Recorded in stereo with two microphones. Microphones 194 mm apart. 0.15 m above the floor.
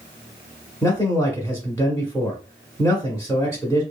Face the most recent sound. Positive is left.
turn(degrees=15)  # may be behind; listen again after turning